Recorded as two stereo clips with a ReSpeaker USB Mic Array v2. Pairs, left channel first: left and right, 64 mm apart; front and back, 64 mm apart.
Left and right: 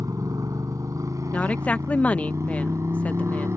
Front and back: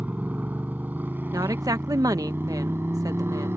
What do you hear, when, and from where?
0.0 s a motorcycle: 115° right; by 3.6 s 130° right
1.3 s a woman speaking: 160° left